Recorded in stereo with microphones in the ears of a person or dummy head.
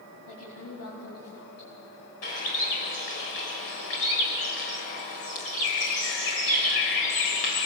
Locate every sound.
0.3 s a woman speaking: 80° left, 4.5 m
2.2 s a bird: 50° left (ahead or behind), 2 m